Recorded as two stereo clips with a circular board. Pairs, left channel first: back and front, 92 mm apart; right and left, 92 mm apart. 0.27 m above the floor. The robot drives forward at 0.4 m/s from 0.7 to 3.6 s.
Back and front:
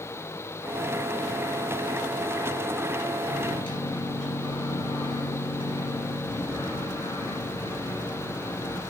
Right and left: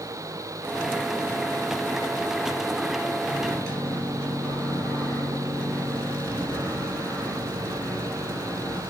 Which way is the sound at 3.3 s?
170° right.